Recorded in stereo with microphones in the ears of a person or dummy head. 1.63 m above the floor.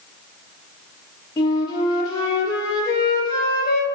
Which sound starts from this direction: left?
A flute, at 1.4 s.